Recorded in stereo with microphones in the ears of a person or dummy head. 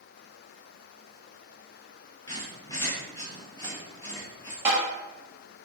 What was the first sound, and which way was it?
A squeak, 20° left (ahead or behind).